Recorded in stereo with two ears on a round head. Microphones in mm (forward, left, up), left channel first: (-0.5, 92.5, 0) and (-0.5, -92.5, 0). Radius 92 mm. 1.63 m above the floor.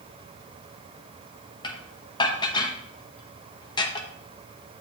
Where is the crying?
I don't hear crying.